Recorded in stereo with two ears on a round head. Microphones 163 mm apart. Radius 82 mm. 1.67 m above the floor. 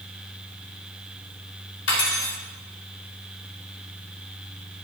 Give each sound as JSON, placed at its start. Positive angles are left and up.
{"t": 1.9, "sound": "cutlery clinking", "side_deg": 70, "distance_m": 3.5}